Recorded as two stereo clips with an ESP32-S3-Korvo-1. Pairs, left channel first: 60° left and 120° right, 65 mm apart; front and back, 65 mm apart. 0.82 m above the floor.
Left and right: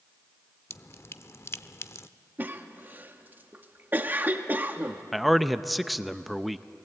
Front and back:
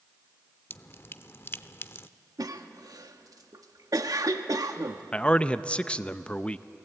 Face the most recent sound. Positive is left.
turn(degrees=-30)